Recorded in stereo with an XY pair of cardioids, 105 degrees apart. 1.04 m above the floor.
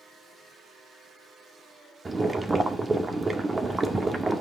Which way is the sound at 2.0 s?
25° right.